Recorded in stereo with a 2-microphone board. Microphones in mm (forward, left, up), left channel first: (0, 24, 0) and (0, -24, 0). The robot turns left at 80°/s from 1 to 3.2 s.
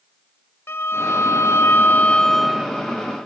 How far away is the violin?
About 0.6 m.